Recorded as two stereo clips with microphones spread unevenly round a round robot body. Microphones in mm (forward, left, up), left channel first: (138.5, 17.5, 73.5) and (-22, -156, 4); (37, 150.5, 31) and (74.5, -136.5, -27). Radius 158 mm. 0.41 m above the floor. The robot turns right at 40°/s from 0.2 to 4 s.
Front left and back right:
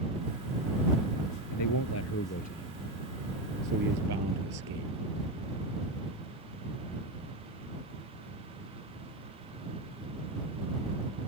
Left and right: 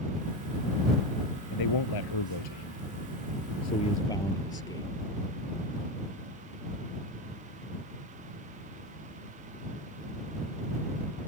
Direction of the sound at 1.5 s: 75° left.